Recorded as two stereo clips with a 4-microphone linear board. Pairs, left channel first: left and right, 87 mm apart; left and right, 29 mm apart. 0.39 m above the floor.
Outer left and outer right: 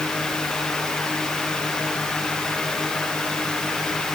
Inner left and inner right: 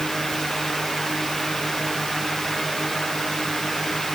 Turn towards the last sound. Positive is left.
No sound to turn to.